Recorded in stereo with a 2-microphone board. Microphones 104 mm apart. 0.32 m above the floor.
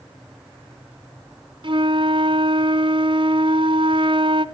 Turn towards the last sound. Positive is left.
turn(degrees=-50)  # may be behind; listen again after turning